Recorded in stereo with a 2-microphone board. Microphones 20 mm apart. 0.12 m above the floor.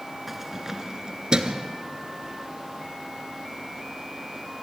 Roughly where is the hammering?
No hammering in this recording.